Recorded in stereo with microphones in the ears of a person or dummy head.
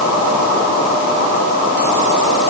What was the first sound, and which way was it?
Only background noise.